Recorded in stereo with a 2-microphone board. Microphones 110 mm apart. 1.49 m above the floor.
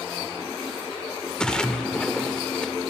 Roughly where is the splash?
Centre.